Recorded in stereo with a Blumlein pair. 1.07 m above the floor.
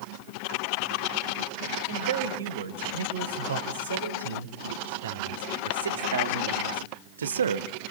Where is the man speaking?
65° right, 4.5 m; by 7.7 s 70° right, 1.1 m.